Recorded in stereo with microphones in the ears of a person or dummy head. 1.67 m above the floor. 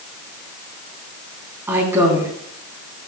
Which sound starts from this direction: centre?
A woman speaking, at 1.7 s.